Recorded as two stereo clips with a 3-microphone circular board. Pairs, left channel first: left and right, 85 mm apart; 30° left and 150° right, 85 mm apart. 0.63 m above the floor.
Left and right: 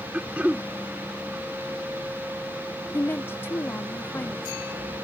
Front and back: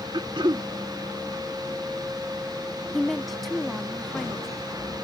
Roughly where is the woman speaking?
Behind left.